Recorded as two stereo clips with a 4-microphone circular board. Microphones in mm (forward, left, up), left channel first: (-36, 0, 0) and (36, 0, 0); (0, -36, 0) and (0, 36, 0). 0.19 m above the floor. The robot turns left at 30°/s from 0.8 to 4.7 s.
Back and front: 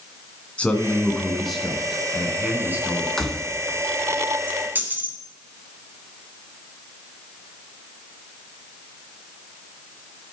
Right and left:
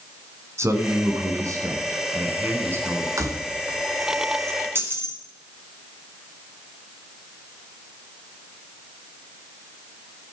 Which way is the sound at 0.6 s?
115° left.